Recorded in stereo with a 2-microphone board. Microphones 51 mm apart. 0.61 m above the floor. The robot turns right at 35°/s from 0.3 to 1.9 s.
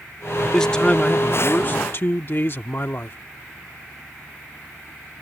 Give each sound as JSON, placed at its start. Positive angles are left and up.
{"t": 0.4, "sound": "a man speaking", "azimuth_deg": 10}